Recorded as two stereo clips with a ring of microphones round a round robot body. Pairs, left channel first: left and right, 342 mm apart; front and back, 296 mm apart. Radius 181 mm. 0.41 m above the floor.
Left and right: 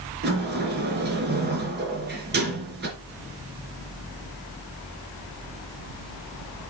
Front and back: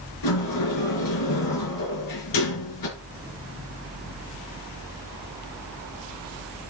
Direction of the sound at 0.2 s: 30° right.